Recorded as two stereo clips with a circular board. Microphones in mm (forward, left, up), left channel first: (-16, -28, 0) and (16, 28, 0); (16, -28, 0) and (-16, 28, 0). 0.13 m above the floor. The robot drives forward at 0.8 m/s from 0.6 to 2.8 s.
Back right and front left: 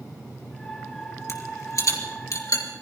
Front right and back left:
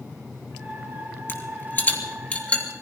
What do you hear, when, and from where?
1.3 s a rattle: 105° right, 3 m; by 2.6 s 130° right, 3 m